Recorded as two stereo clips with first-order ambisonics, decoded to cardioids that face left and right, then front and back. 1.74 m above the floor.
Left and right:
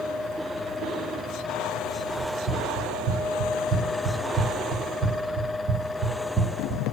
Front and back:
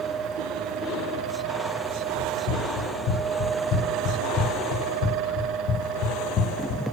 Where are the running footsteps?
40° right, 4.5 m; by 6.8 s 20° right, 2 m.